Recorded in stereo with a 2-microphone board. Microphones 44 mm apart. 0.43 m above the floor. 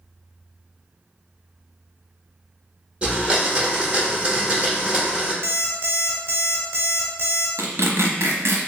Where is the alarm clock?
55° right (ahead or behind), 0.9 m.